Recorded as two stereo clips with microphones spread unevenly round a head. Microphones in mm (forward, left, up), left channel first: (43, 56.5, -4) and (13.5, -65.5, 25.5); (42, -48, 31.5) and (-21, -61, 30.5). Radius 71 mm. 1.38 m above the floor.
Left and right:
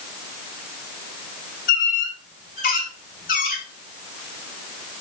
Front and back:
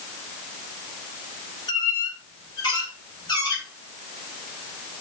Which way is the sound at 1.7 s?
65° left.